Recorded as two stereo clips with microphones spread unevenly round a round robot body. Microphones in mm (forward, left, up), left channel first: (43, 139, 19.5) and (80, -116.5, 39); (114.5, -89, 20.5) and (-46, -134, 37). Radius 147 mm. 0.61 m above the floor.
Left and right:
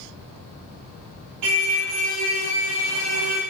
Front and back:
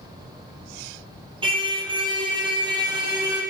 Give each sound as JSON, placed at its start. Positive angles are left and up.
{"t": 1.4, "sound": "a car horn", "azimuth_deg": -105, "distance_m": 7.5}